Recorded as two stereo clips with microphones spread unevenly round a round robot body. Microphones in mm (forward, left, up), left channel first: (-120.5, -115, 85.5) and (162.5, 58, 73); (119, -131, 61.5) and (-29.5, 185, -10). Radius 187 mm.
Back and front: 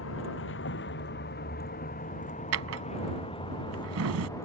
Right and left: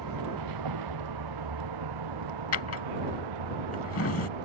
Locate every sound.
0.0 s a vehicle: 155° left; by 4.5 s 130° left
2.5 s a drawer: 15° right